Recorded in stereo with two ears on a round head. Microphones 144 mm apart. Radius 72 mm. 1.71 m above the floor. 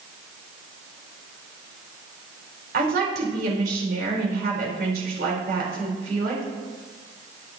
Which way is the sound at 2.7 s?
65° right (ahead or behind).